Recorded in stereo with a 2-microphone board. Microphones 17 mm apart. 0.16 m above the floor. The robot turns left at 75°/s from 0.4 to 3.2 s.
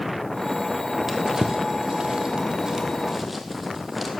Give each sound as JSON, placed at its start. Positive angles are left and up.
{"t": 1.1, "sound": "a drawer", "side_deg": -15, "distance_m": 1.5}